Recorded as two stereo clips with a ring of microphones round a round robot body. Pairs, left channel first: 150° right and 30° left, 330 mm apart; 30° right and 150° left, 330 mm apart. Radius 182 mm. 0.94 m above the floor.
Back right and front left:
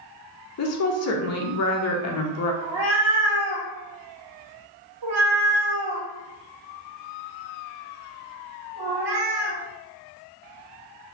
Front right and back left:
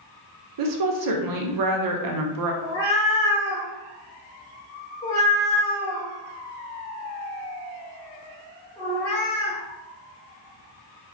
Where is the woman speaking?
170° left, 0.6 m.